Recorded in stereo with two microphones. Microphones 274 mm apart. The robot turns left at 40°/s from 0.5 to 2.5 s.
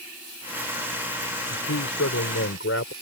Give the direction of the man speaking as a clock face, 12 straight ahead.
9 o'clock.